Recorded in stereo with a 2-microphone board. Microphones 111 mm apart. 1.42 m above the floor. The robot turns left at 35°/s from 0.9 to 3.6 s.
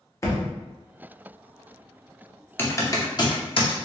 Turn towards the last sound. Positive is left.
turn(degrees=55)  # may be behind; listen again after turning